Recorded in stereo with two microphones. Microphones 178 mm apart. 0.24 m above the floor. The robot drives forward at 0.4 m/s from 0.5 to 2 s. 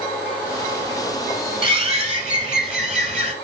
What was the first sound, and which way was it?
A bird, 30° right (ahead or behind).